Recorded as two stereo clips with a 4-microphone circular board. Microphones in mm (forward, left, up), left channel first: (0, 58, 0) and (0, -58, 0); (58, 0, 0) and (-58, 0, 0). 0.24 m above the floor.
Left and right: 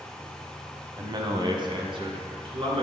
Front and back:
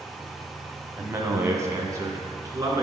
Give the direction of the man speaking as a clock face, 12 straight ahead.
4 o'clock.